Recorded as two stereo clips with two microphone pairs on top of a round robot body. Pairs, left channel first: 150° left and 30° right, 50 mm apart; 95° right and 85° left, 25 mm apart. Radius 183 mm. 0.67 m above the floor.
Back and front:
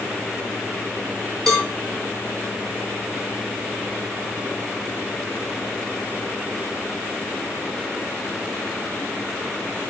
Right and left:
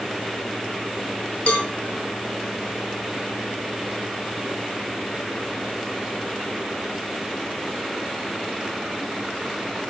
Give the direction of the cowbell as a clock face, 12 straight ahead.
4 o'clock.